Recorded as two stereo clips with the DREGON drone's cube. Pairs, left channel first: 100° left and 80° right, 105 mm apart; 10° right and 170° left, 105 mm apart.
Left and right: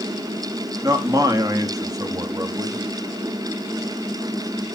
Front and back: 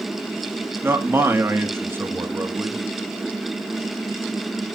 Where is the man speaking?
125° right, 1.5 m.